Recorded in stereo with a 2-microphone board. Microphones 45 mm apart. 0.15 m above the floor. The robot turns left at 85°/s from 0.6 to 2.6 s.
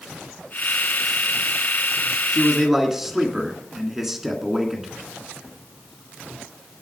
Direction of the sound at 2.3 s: 10° left (ahead or behind).